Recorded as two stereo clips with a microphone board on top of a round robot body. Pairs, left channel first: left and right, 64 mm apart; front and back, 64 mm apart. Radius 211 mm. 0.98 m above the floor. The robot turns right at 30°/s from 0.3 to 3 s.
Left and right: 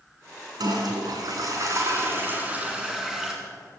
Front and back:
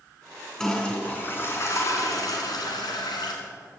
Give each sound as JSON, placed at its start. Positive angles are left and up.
{"t": 0.6, "sound": "a toilet flushing", "azimuth_deg": -80, "distance_m": 3.5}